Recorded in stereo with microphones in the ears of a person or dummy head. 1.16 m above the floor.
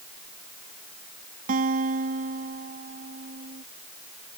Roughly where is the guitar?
Right.